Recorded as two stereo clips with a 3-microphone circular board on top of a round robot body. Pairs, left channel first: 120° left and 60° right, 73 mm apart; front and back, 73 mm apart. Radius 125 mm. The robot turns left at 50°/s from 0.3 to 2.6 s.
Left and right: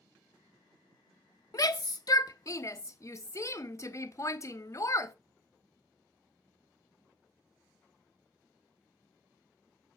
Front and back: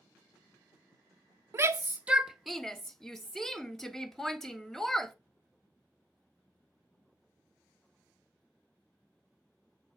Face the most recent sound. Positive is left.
turn(degrees=85)